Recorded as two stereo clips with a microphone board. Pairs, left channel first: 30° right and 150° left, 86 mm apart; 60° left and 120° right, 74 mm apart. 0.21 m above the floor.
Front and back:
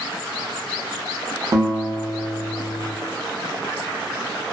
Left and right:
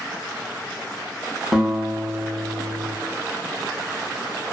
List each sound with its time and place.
1.5 s a guitar: 155° left, 0.7 m